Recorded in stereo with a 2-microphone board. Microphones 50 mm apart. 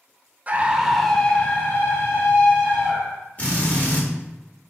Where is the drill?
25° left (ahead or behind), 1.8 m.